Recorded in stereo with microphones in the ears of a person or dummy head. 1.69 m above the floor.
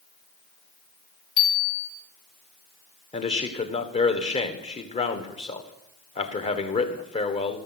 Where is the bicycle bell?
30° left (ahead or behind), 2.5 m.